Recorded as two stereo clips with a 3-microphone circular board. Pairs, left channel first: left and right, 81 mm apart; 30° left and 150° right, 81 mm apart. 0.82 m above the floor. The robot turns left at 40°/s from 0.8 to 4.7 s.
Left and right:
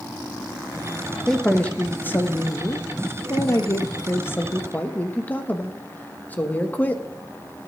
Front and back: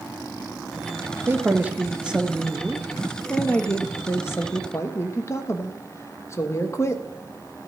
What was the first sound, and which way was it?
A man speaking, 175° left.